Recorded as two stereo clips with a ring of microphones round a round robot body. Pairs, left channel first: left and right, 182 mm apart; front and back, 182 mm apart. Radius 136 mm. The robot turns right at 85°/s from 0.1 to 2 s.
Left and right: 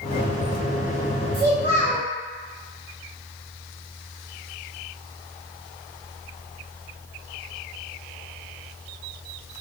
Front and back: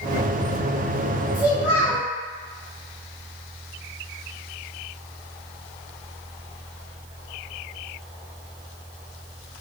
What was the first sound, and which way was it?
A child speaking, 105° right.